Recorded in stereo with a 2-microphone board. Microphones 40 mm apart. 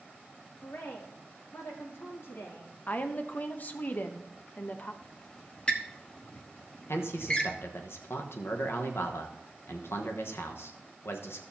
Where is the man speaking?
70° left (ahead or behind), 1.2 m.